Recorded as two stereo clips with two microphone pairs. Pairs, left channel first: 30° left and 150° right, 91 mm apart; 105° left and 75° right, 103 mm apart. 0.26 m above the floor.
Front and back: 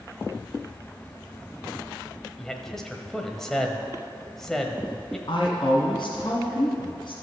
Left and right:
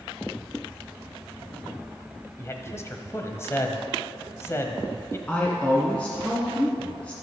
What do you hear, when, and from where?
2.4 s a man speaking: 110° left, 1.1 m
5.3 s a woman speaking: 30° left, 2.0 m